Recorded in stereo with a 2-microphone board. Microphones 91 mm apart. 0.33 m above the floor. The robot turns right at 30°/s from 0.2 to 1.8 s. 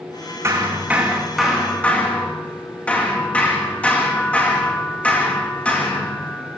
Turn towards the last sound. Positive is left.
turn(degrees=15)